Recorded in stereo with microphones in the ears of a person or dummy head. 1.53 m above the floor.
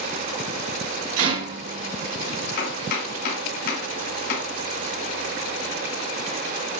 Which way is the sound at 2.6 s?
65° left (ahead or behind).